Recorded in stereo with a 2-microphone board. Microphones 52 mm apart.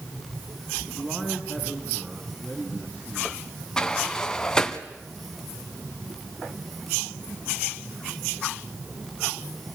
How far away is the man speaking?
About 3 m.